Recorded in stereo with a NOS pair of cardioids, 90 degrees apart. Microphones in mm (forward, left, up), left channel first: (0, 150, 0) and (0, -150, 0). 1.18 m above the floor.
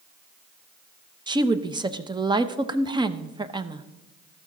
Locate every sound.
1.3 s a woman speaking: 15° right, 0.8 m